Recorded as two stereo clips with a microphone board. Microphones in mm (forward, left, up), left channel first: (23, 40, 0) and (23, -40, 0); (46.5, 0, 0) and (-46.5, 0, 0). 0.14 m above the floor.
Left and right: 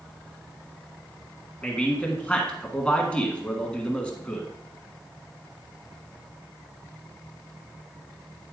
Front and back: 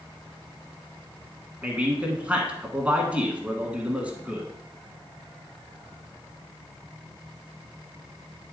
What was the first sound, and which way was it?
A man speaking, 135° left.